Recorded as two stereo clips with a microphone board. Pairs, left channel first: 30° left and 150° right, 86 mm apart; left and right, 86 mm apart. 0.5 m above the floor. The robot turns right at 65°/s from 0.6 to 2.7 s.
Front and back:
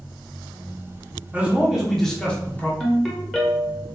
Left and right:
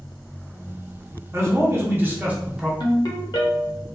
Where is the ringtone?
115° left, 0.8 m.